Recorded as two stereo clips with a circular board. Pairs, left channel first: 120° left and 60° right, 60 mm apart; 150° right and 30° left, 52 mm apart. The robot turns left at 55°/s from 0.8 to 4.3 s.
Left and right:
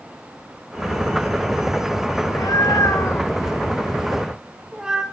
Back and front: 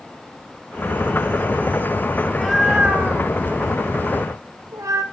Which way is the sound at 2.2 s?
130° left.